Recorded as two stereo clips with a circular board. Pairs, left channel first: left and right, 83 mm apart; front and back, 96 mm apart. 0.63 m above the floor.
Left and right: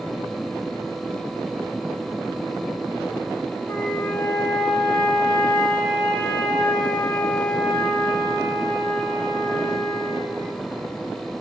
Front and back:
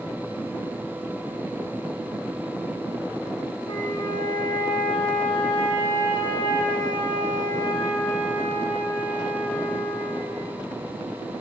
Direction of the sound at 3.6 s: 30° left.